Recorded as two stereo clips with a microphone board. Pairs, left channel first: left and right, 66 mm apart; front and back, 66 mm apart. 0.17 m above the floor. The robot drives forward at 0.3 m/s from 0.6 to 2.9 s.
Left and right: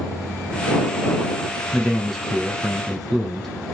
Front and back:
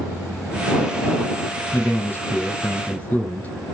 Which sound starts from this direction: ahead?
A man speaking, at 1.7 s.